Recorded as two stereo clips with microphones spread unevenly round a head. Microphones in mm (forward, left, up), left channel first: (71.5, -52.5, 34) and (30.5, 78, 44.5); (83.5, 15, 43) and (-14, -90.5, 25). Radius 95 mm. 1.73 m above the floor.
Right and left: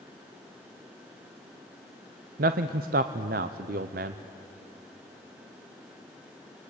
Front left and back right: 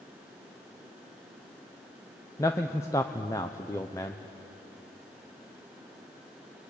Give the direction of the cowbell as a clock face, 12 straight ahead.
I don't hear a cowbell.